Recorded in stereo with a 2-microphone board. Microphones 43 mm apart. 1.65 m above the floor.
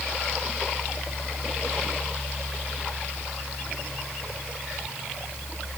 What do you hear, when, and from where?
Only background noise.